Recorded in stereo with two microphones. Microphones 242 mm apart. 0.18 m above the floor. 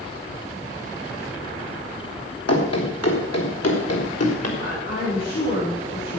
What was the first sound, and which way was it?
Running footsteps, 85° left.